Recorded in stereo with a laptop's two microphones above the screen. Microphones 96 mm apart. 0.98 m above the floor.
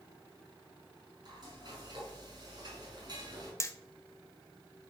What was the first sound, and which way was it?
Frying, 45° right (ahead or behind).